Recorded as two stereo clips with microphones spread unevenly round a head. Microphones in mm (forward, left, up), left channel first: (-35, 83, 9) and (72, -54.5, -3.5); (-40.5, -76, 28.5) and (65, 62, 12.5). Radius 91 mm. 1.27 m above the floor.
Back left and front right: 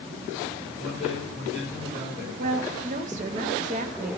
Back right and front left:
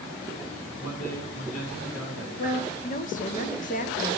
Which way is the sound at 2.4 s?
90° right.